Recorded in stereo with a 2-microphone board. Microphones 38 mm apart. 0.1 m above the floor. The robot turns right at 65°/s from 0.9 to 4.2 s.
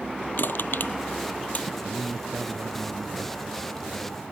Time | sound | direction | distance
0.4 | crushing | 65° left (ahead or behind) | ?
1.8 | a man speaking | 140° right | ?